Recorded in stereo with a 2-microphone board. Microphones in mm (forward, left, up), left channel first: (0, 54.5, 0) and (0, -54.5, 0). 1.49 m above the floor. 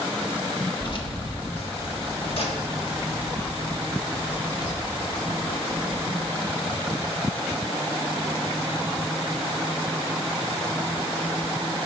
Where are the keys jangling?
45° left (ahead or behind), 1.4 m.